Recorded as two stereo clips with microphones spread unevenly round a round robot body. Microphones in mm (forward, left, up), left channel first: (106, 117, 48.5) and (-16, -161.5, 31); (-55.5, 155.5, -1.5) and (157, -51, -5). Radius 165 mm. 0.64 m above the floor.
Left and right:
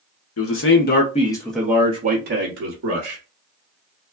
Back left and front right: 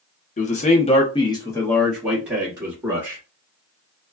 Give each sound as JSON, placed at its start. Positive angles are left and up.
{"t": 0.4, "sound": "a man speaking", "azimuth_deg": 80, "distance_m": 0.9}